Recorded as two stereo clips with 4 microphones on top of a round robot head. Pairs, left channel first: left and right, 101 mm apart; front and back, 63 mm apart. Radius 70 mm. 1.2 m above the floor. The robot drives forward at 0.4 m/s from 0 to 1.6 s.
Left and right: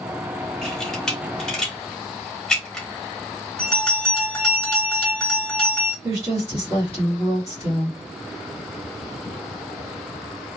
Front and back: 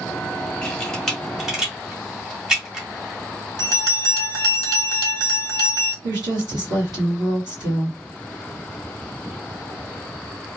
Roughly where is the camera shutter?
Ahead.